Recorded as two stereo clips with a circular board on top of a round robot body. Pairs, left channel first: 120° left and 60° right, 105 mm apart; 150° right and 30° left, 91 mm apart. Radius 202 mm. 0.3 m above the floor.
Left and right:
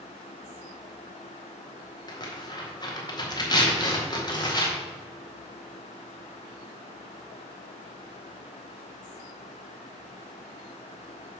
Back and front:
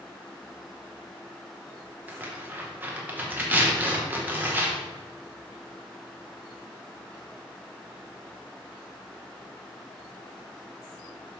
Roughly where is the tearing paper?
Left.